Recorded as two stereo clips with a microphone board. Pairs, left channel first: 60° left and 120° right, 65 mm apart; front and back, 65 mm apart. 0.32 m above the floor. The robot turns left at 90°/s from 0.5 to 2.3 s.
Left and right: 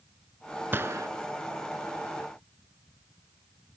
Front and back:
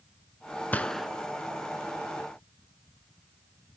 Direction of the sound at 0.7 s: 65° right.